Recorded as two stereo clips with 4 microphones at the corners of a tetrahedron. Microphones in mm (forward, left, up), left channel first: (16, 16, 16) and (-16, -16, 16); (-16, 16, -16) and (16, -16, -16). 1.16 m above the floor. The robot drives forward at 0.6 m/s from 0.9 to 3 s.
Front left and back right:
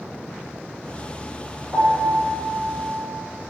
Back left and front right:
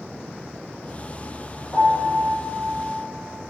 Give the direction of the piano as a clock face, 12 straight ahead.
6 o'clock.